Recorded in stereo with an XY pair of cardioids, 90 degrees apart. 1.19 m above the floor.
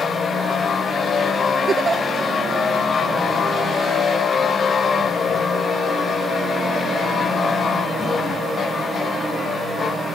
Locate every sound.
1.7 s a giggle: 45° right